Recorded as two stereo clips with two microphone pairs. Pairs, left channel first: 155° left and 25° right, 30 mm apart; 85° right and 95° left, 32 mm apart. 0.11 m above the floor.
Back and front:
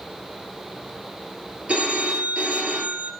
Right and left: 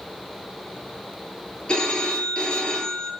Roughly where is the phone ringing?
Ahead right.